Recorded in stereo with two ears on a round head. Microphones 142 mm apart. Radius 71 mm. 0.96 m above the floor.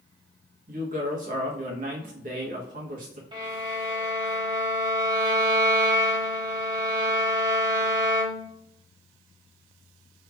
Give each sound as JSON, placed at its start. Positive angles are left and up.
{"t": 0.7, "sound": "a woman speaking", "side_deg": -55, "distance_m": 1.2}
{"t": 3.3, "sound": "a violin", "side_deg": -30, "distance_m": 0.9}